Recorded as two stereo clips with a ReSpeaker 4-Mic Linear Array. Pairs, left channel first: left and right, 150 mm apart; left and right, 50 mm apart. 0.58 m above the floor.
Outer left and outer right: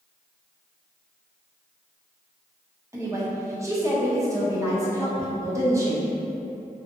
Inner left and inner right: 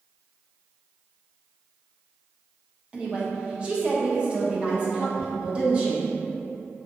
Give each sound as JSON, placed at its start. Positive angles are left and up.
{"t": 2.9, "sound": "a woman speaking", "side_deg": -20, "distance_m": 0.6}